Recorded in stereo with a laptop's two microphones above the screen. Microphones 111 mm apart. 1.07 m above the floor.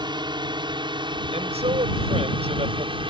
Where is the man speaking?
85° right.